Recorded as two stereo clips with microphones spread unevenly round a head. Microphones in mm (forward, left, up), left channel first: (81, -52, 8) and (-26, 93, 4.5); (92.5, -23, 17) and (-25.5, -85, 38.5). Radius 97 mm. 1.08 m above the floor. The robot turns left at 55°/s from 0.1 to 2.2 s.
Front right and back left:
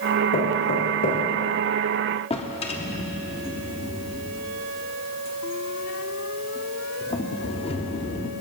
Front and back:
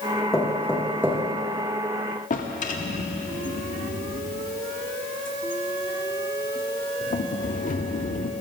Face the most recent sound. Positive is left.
turn(degrees=5)